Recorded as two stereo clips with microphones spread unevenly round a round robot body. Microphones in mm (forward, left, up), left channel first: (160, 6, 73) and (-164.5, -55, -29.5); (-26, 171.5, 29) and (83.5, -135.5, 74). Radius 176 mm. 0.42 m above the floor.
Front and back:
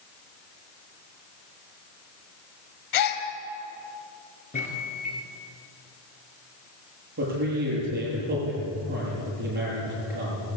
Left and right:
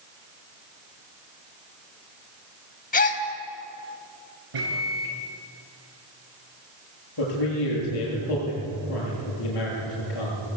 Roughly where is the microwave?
Ahead right.